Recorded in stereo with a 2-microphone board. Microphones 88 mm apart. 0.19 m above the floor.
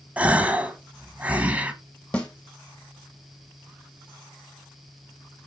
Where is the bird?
I don't hear a bird.